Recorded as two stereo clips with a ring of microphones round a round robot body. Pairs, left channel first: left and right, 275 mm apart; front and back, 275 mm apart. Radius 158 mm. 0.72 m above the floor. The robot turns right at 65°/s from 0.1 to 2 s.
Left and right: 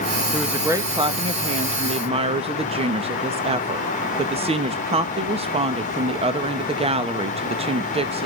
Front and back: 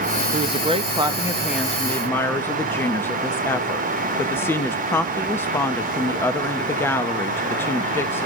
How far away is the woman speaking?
About 0.9 m.